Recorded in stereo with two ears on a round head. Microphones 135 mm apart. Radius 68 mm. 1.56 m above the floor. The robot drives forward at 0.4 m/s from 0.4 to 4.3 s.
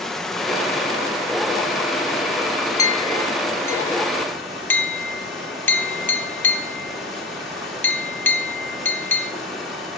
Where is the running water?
5° left (ahead or behind), 0.9 m; by 10.0 s centre (ahead or behind), 2.5 m.